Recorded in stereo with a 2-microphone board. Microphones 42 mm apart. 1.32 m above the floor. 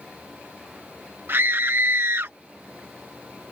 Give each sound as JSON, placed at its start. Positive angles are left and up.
{"t": 1.3, "sound": "a scream", "side_deg": -70}